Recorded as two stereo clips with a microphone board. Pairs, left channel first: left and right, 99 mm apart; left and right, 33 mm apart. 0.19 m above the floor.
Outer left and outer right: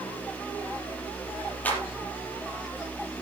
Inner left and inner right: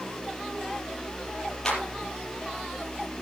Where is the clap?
15° left (ahead or behind), 5 m.